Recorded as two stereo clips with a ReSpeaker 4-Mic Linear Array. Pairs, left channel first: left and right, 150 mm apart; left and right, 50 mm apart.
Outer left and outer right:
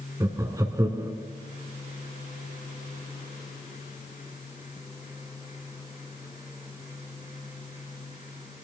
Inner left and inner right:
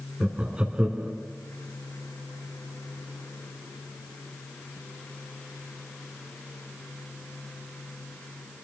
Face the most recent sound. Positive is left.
turn(degrees=-25)  # may be behind; listen again after turning